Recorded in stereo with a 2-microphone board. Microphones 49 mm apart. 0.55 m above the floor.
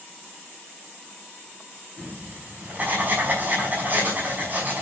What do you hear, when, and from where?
2.0 s writing: 35° right (ahead or behind), 5.5 m